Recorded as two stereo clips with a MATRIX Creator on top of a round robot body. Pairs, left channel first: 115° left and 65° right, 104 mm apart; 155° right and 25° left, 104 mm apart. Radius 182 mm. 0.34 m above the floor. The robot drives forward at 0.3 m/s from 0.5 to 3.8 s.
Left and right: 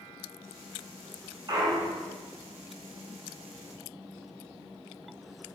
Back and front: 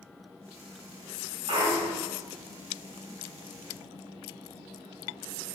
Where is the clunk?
15° right, 1.1 m; by 2.1 s 20° right, 0.9 m.